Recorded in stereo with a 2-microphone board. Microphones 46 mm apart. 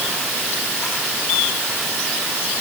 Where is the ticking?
I don't hear ticking.